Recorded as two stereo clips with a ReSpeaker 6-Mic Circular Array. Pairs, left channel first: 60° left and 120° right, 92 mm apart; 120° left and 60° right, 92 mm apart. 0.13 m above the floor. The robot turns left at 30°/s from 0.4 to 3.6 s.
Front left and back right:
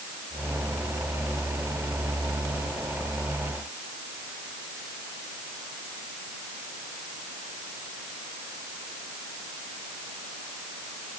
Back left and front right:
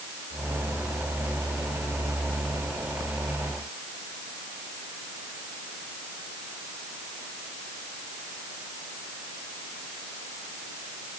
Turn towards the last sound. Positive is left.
No sound to turn to.